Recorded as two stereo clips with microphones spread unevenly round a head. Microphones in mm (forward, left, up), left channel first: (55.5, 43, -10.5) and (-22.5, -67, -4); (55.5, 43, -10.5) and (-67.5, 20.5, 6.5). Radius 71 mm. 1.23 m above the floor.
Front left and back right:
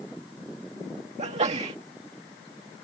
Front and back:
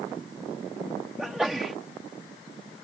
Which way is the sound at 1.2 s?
85° right.